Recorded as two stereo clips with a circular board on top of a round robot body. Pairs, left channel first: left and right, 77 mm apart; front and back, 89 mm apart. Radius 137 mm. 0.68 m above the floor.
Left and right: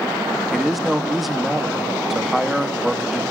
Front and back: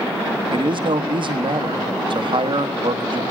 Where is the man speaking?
Straight behind, 1.9 m.